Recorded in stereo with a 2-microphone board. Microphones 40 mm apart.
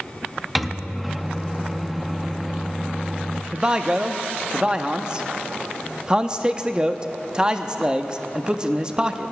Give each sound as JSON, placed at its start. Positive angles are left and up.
{"t": 0.6, "sound": "a microwave", "side_deg": 0, "distance_m": 0.5}
{"t": 3.5, "sound": "a man speaking", "side_deg": -20, "distance_m": 0.6}